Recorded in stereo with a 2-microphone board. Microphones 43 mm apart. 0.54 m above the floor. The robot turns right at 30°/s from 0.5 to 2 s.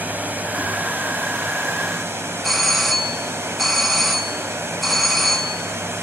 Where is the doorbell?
5° left (ahead or behind), 1.1 m.